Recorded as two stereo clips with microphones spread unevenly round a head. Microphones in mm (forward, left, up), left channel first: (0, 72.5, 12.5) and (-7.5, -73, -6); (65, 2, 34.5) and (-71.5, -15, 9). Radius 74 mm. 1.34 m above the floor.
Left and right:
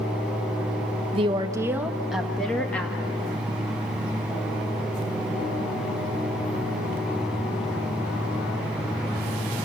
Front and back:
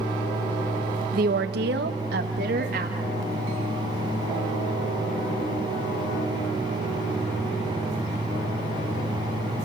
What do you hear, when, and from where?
1.1 s a woman speaking: 145° right, 1.2 m; by 3.2 s 160° left, 2.5 m